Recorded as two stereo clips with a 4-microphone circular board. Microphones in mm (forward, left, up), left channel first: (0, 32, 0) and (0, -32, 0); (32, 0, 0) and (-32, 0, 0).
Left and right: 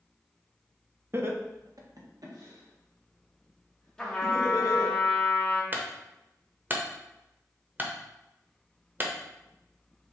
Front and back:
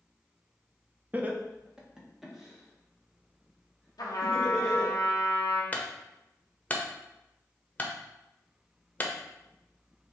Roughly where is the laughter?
Behind right.